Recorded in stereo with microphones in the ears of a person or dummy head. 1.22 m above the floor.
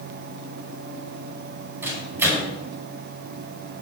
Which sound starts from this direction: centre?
A microwave, at 1.8 s.